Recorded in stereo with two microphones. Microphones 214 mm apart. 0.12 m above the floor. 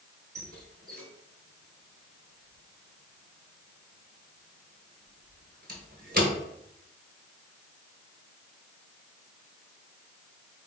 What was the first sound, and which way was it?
A squeak, 45° right (ahead or behind).